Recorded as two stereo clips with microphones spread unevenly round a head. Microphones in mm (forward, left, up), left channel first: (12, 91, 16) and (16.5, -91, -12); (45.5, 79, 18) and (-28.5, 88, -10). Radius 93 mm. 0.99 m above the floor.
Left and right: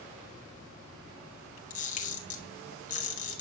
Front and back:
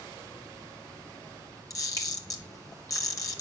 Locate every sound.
1.7 s a camera shutter: 40° left, 3 m